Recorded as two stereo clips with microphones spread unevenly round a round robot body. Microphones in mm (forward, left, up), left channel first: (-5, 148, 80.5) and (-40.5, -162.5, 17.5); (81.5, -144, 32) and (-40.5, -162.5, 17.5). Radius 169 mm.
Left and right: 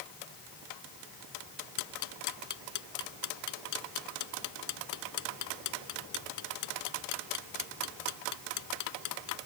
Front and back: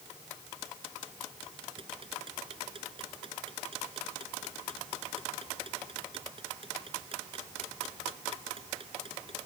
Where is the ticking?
115° left.